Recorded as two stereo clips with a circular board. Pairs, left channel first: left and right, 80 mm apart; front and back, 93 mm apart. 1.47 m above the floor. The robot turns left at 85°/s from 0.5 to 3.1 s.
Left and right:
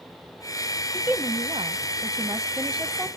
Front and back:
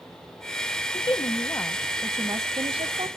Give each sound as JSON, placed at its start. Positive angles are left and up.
{"t": 0.9, "sound": "a woman speaking", "azimuth_deg": -10, "distance_m": 0.7}